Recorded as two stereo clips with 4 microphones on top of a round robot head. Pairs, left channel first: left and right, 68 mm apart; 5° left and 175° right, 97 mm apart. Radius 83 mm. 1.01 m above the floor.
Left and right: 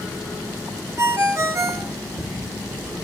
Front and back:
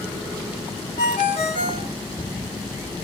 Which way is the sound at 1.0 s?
45° right.